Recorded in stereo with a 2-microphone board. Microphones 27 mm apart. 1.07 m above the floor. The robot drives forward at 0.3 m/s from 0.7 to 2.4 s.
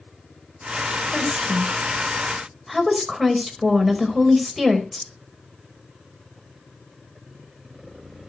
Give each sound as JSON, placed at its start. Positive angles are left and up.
{"t": 1.1, "sound": "a woman speaking", "side_deg": -5, "distance_m": 4.0}